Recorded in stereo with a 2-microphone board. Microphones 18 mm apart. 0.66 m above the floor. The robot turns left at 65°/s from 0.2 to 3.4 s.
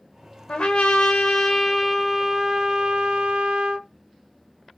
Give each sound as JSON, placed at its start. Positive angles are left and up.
{"t": 0.5, "sound": "a trumpet", "azimuth_deg": 100, "distance_m": 0.6}